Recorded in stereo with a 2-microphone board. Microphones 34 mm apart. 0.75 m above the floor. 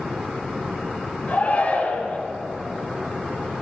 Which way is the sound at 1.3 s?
55° left (ahead or behind).